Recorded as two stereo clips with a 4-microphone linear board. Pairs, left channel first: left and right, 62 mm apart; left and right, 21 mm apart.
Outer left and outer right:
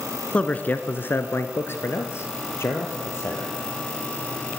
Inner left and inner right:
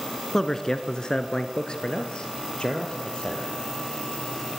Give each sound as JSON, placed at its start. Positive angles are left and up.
{"t": 0.3, "sound": "a man speaking", "side_deg": 20, "distance_m": 1.2}